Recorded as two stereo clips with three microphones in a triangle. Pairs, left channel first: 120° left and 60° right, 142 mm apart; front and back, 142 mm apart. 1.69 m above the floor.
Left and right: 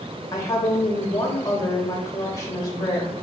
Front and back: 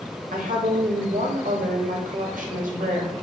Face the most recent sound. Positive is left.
turn(degrees=-175)